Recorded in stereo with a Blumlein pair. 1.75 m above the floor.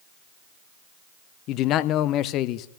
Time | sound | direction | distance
1.5 | a man speaking | 35° left | 0.8 m